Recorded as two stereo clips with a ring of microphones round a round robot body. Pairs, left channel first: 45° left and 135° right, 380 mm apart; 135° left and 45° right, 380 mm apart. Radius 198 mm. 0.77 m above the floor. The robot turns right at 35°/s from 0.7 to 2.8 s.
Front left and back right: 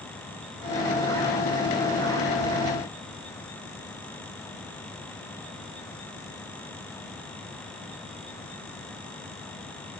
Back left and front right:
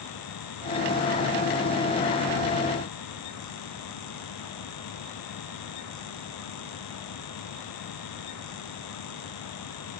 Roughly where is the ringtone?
No ringtone in this recording.